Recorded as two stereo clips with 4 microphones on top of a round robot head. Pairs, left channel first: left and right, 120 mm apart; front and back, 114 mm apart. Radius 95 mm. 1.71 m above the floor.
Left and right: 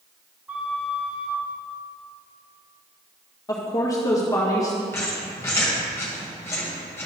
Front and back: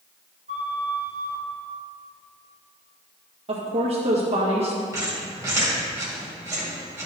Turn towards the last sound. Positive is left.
turn(degrees=140)